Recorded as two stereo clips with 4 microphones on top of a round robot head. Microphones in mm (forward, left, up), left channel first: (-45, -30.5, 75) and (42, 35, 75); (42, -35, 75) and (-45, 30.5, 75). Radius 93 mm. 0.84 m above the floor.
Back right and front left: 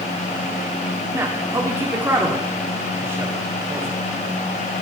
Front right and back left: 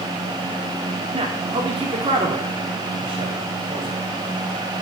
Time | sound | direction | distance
1.1 | a man speaking | 105° left | 2.5 m